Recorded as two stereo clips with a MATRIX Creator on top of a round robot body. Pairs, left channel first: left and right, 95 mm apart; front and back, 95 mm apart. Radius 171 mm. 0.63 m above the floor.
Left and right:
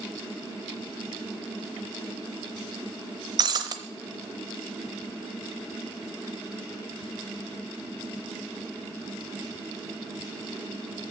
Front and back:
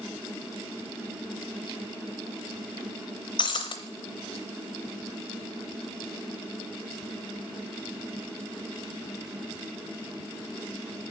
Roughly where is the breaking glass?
Ahead right.